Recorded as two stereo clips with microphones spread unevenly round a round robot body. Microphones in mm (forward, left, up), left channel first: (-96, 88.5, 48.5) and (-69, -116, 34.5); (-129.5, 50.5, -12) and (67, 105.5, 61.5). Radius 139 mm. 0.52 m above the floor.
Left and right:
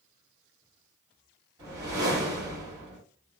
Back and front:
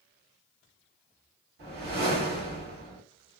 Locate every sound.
1.6 s a whoosh: 30° right, 1.4 m